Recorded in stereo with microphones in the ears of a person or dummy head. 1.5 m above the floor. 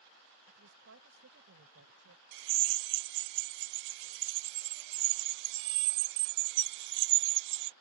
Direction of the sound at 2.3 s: 70° right (ahead or behind).